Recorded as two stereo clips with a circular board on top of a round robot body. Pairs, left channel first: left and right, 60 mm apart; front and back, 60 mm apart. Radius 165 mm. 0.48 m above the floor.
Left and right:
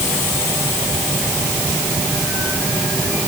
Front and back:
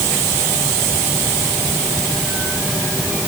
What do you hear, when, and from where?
Only background noise.